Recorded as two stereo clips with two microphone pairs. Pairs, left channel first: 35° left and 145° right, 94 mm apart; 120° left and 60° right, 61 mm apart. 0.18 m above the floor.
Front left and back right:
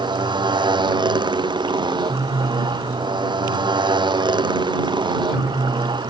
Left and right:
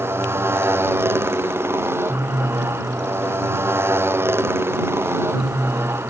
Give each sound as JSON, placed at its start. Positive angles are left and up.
{"t": 0.0, "sound": "a motorcycle", "azimuth_deg": -110}